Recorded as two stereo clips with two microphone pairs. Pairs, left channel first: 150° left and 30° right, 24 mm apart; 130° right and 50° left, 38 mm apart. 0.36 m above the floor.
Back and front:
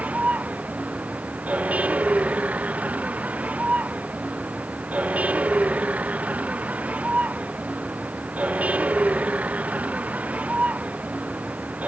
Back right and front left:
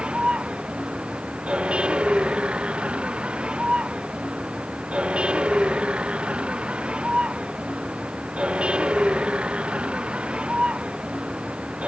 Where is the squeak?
No squeak in this recording.